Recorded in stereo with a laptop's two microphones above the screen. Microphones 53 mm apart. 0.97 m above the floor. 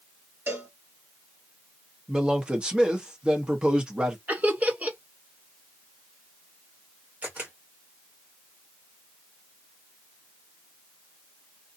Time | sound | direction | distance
0.5 | a cowbell | 40° right (ahead or behind) | 1.5 m
2.1 | a man speaking | 15° right (ahead or behind) | 1.0 m
4.3 | laughter | 30° right (ahead or behind) | 0.8 m
7.2 | a camera shutter | 30° right (ahead or behind) | 1.6 m